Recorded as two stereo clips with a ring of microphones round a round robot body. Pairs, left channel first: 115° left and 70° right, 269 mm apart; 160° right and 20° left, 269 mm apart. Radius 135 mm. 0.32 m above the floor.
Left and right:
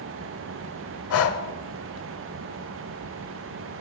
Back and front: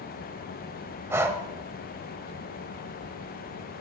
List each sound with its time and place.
1.1 s breathing: 100° left, 0.8 m